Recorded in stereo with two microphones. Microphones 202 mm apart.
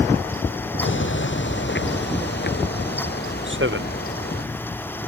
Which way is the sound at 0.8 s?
70° left (ahead or behind).